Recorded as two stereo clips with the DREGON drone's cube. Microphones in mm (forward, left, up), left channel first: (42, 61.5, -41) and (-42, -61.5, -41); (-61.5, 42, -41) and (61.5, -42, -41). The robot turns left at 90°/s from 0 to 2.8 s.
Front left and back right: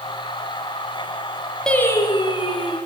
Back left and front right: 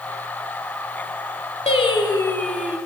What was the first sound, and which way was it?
Singing, 140° left.